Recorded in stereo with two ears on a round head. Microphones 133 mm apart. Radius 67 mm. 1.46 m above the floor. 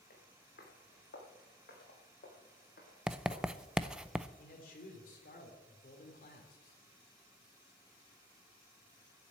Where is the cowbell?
No cowbell in this recording.